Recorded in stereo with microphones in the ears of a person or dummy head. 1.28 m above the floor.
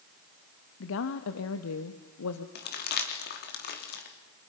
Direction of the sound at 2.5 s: 55° left (ahead or behind).